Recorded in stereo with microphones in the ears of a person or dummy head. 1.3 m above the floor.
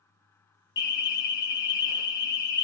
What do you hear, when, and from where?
0.8 s an alarm: 20° left (ahead or behind), 0.5 m